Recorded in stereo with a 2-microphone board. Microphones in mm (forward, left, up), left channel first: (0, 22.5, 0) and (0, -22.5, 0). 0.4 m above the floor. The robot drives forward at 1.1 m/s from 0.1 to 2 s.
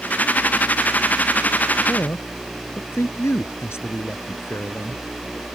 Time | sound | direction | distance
1.9 | a man speaking | 80° left | ?